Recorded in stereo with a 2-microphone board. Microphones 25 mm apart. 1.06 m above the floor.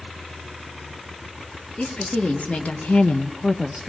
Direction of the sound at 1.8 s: 55° left (ahead or behind).